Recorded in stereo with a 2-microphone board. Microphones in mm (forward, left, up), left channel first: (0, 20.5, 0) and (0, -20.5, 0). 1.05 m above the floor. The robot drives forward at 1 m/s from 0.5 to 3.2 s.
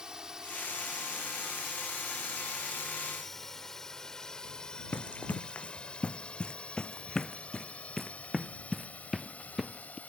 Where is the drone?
20° right (ahead or behind); by 10.1 s 40° left (ahead or behind).